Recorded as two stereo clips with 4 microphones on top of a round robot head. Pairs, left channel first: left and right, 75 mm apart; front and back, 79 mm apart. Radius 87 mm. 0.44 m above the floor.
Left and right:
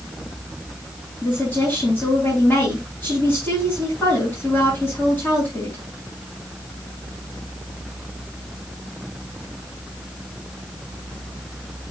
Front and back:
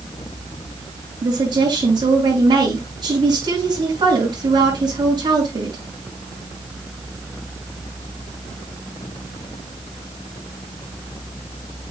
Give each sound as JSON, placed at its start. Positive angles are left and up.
{"t": 1.2, "sound": "a woman speaking", "azimuth_deg": 160, "distance_m": 6.5}